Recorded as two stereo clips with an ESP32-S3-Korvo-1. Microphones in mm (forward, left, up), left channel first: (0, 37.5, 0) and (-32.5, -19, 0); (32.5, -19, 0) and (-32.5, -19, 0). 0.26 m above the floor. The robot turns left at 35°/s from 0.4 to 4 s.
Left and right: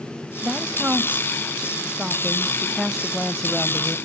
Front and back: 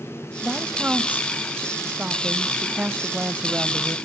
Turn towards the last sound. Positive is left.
turn(degrees=115)